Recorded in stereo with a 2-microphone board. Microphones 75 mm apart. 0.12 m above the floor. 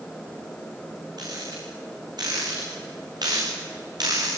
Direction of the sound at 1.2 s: 65° right (ahead or behind).